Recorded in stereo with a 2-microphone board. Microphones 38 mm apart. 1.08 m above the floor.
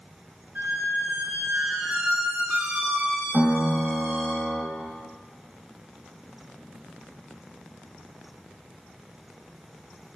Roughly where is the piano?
Centre.